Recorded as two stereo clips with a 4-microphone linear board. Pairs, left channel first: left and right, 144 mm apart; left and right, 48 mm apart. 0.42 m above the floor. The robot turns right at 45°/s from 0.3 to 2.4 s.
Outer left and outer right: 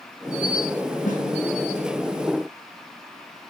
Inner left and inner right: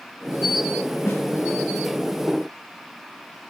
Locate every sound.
1.1 s a snare drum: 75° left (ahead or behind), 4.5 m